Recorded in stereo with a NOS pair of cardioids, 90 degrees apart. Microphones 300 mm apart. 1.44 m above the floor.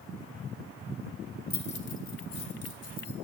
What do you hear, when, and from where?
1.5 s keys jangling: 30° left, 1.2 m; by 3.1 s 60° left, 2.5 m